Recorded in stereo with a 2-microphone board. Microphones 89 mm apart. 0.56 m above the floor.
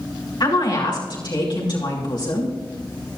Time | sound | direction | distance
0.4 | a woman speaking | 55° left (ahead or behind) | 4.5 m